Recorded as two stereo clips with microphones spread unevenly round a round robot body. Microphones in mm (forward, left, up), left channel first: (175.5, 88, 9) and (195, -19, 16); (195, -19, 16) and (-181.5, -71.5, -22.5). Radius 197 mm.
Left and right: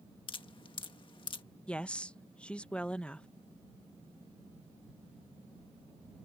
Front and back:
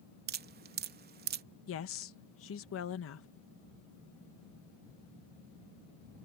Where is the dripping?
130° left.